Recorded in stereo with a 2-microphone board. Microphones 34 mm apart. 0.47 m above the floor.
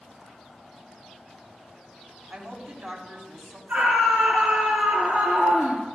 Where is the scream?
75° right (ahead or behind), 7 m.